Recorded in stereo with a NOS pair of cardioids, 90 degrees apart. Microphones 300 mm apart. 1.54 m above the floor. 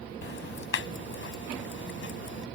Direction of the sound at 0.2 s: 45° left.